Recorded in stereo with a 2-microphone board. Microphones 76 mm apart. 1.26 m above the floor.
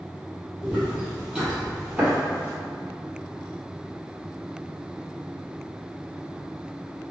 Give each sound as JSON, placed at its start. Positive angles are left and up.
{"t": 0.6, "sound": "footsteps", "side_deg": -5, "distance_m": 1.8}